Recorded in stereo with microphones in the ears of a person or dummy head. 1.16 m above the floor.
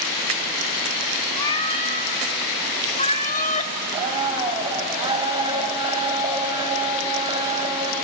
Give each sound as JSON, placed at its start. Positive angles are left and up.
{"t": 1.4, "sound": "a cat meowing", "side_deg": 20, "distance_m": 0.9}
{"t": 3.9, "sound": "a blender", "side_deg": -30, "distance_m": 2.5}